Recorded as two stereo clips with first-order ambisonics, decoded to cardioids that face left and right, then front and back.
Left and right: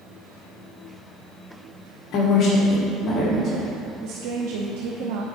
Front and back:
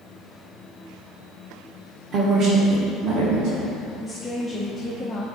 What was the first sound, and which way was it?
A woman speaking, 125° left.